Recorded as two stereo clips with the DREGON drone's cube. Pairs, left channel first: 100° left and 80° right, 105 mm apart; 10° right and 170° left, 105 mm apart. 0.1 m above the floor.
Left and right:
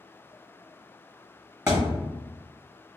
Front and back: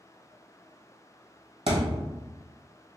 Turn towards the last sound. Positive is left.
turn(degrees=-160)